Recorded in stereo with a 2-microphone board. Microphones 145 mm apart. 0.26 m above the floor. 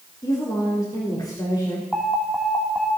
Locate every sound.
0.2 s a woman speaking: 25° left (ahead or behind), 3.5 m
1.9 s an alarm: 5° left (ahead or behind), 2.5 m